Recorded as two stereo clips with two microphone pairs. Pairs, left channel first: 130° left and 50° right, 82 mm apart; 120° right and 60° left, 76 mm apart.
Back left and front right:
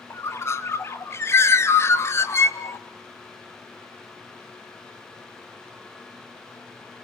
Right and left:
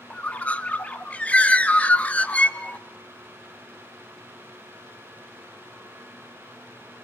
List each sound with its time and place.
0.1 s a bird: 175° left, 0.7 m